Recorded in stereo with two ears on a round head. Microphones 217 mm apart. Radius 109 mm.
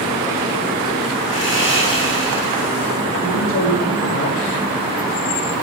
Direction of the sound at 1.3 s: 50° left (ahead or behind).